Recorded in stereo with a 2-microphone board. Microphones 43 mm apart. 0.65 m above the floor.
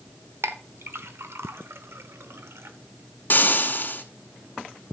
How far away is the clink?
About 1.0 m.